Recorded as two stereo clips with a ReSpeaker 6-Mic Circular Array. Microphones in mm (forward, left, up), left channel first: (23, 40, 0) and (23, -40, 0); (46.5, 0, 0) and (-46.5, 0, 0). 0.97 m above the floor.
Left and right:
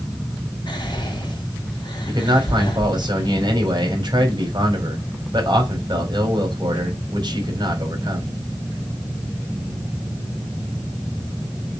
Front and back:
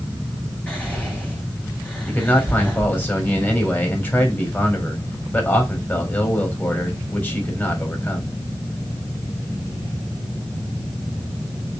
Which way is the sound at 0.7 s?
80° left.